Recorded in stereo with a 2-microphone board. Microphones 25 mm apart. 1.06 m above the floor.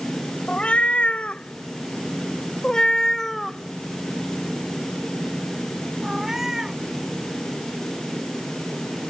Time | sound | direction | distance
0.5 | a cat meowing | 70° left (ahead or behind) | ?